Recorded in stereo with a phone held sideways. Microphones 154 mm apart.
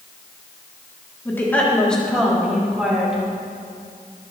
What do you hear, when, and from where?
1.2 s a woman speaking: 15° left (ahead or behind), 3 m; by 3.2 s 5° right (ahead or behind), 5 m